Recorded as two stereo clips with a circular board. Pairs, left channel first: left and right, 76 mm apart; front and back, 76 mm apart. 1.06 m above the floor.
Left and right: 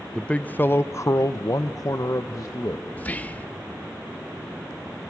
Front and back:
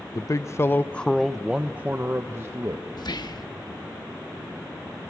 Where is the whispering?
20° left, 1.1 m.